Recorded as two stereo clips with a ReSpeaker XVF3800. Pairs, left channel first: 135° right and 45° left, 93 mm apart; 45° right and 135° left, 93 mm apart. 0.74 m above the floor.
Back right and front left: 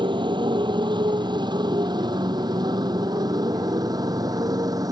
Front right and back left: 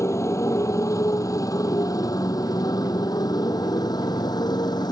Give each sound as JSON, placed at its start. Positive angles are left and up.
{"t": 0.0, "sound": "a motorcycle", "azimuth_deg": 15}